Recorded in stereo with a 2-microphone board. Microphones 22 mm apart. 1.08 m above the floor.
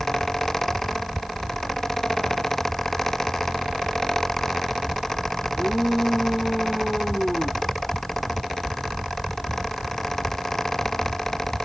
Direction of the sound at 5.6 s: 10° right (ahead or behind).